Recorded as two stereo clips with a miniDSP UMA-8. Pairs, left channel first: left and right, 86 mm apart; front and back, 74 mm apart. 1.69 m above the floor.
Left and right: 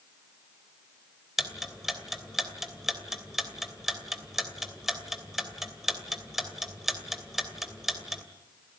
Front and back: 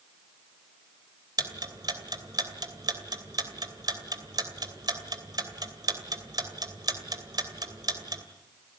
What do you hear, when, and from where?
1.4 s ticking: 175° right, 2.5 m